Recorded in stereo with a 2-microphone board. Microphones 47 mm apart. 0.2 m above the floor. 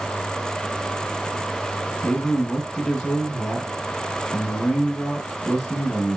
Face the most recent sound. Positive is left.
turn(degrees=20)  # may be behind; listen again after turning